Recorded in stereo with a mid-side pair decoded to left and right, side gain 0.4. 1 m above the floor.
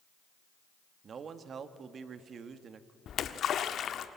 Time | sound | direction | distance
1.0 | a man speaking | 60° right | 1.7 m
3.1 | a splash | 65° left | 1.4 m